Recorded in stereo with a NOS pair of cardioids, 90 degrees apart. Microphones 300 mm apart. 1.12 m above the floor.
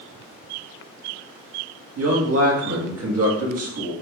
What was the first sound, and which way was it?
A man speaking, 55° right.